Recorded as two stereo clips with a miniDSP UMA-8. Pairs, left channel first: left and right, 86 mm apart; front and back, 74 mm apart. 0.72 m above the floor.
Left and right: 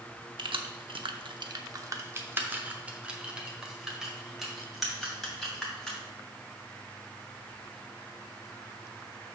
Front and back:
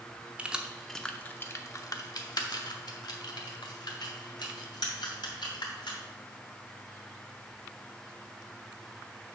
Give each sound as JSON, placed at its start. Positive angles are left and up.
{"t": 0.4, "sound": "keys jangling", "azimuth_deg": -105, "distance_m": 0.8}